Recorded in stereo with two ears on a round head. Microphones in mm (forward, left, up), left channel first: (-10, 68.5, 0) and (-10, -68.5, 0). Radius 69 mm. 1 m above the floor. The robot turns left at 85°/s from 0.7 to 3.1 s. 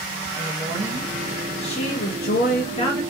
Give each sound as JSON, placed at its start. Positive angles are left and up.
{"t": 0.4, "sound": "a woman speaking", "azimuth_deg": -140, "distance_m": 0.7}